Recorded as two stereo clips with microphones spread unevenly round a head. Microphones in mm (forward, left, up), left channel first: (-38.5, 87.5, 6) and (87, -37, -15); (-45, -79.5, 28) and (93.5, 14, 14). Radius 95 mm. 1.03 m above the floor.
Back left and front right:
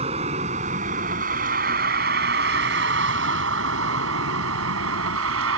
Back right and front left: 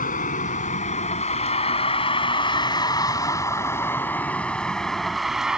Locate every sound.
0.0 s a vehicle: 105° right; by 5.6 s 55° right